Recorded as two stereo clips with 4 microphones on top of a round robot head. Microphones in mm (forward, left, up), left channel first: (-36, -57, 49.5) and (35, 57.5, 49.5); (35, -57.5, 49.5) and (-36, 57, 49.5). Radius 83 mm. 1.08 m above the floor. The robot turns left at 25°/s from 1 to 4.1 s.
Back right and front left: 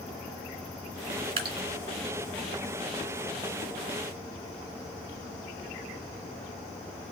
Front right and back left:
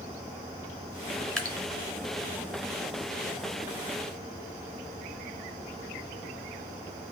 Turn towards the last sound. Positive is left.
turn(degrees=-45)